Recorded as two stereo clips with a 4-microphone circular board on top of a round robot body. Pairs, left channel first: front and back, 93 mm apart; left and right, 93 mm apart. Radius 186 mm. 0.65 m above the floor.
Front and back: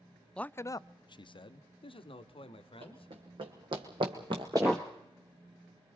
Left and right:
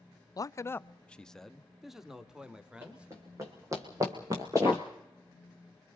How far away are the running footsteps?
About 2.5 m.